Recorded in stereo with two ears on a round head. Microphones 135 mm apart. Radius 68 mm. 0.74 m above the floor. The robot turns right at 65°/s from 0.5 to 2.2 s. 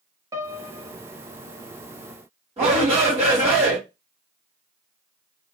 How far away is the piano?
About 0.7 m.